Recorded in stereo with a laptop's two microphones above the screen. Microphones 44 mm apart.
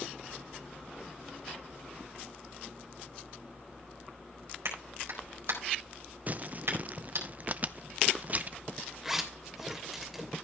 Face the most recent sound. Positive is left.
turn(degrees=-10)  # may be behind; listen again after turning